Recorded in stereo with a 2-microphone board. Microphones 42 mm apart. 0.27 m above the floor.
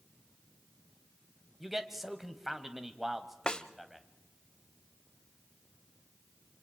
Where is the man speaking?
5° right (ahead or behind), 1.2 m.